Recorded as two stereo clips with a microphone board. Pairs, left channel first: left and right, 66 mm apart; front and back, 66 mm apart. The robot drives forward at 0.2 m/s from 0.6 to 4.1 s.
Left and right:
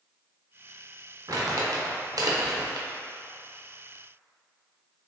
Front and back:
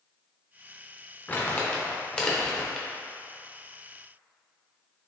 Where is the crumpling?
65° right, 0.8 m; by 2.9 s 90° right, 0.7 m.